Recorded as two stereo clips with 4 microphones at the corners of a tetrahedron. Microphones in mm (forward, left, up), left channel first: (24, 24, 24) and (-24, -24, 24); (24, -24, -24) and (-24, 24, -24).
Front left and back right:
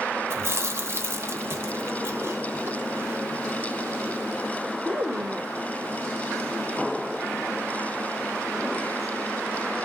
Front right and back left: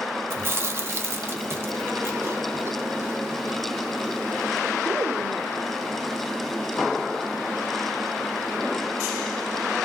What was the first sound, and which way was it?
Chewing, straight behind.